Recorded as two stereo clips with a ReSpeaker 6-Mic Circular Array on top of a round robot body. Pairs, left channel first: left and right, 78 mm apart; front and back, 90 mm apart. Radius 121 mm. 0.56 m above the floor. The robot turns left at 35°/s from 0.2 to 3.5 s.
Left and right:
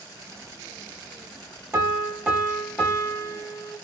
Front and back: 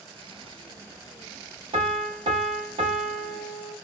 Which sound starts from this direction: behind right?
A piano, at 1.7 s.